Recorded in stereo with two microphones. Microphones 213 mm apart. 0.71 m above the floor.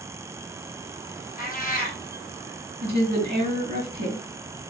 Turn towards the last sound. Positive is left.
turn(degrees=-50)  # may be behind; listen again after turning